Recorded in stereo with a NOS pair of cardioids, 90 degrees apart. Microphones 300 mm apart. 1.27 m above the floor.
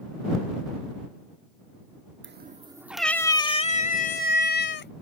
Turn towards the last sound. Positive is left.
turn(degrees=40)